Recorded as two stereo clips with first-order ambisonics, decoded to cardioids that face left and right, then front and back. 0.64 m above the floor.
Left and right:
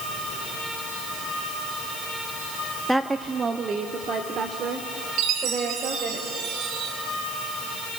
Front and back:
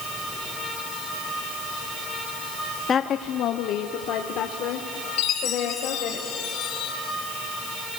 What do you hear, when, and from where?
2.9 s a woman speaking: straight ahead, 0.5 m; by 6.2 s 35° right, 2.5 m
5.2 s a chime: 45° right, 3 m